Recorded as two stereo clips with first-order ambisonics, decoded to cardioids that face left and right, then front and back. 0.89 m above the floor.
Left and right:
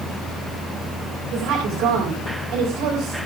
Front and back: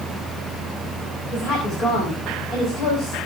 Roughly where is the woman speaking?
Ahead right.